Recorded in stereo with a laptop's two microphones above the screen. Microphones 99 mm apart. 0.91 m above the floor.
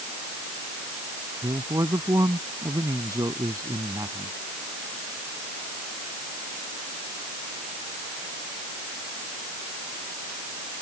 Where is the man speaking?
35° right (ahead or behind).